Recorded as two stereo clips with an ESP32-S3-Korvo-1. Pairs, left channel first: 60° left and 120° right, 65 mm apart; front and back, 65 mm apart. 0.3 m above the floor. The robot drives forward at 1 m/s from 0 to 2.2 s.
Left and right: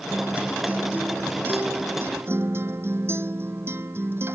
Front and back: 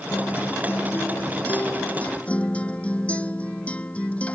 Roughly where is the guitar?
Ahead right.